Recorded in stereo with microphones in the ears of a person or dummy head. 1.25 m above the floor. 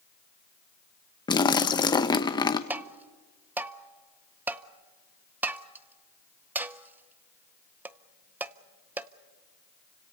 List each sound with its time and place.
1.3 s a splash: 20° left (ahead or behind), 0.8 m
2.7 s tapping: 10° right (ahead or behind), 0.5 m